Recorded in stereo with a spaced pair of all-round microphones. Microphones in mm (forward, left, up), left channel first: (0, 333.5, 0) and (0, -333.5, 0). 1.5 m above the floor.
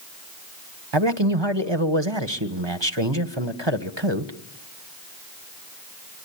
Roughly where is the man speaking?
Right.